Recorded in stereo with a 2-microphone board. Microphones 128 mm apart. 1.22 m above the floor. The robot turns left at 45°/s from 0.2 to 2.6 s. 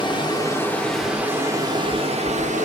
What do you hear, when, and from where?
0.0 s running water: 35° left, 0.8 m; by 2.6 s 70° right, 0.8 m